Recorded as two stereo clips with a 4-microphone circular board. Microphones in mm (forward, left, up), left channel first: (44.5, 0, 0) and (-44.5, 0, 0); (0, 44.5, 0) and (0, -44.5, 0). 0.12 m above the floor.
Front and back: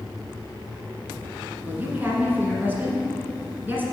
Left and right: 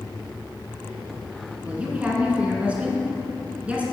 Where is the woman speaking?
145° right, 1.6 m.